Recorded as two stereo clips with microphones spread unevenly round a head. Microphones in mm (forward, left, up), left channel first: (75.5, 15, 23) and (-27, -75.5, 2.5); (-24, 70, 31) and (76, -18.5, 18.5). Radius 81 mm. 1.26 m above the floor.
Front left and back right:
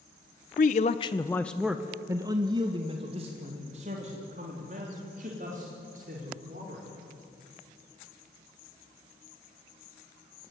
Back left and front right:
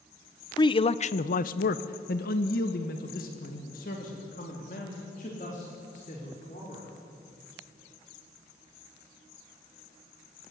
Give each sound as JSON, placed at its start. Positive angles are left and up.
{"t": 0.6, "sound": "a man speaking", "azimuth_deg": 80, "distance_m": 0.9}